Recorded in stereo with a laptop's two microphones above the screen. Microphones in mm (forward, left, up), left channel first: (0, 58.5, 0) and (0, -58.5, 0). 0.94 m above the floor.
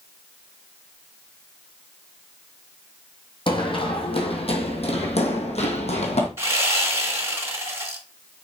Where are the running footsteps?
45° left (ahead or behind), 2 m; by 6.3 s 65° left (ahead or behind), 2 m.